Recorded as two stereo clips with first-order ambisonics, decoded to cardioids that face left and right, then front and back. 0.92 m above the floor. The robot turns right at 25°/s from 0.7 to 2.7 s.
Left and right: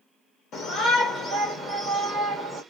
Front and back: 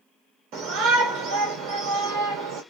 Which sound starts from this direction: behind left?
A shout, at 0.5 s.